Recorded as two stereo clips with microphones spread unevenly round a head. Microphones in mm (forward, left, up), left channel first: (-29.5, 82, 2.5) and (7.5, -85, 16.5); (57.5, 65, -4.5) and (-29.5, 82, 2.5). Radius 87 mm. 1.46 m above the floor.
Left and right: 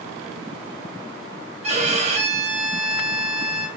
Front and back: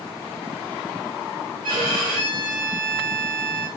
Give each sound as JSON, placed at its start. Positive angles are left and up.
{"t": 1.6, "sound": "a violin", "azimuth_deg": -135, "distance_m": 0.5}